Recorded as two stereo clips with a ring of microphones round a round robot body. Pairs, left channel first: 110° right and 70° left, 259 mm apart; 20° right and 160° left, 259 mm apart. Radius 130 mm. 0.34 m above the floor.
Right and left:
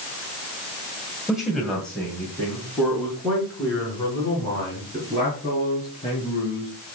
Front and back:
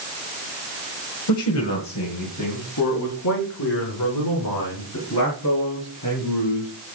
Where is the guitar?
I don't hear a guitar.